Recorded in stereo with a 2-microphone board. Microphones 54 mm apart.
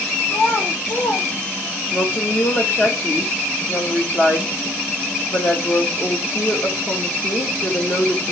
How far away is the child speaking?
About 1.4 m.